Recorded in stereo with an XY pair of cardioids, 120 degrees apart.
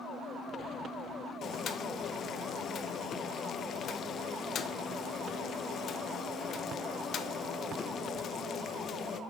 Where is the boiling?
50° left, 0.7 m.